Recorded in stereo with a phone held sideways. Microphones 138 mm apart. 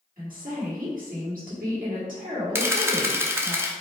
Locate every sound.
0.2 s a woman speaking: 80° right, 2.0 m
2.5 s a camera shutter: 20° right (ahead or behind), 0.6 m